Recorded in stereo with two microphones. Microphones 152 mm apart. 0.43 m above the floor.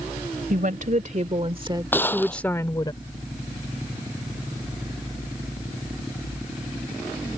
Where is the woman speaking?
60° right (ahead or behind); by 2.9 s 30° left (ahead or behind).